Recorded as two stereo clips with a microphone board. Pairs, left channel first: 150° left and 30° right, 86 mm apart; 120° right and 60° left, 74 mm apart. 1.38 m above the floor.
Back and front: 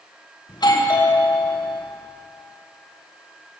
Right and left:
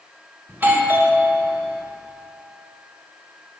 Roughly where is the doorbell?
Behind left.